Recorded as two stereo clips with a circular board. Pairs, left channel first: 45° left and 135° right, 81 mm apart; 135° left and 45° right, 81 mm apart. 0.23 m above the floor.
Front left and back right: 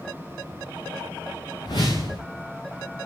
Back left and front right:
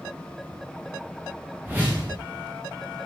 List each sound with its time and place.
1.6 s a whoosh: 25° left, 6.5 m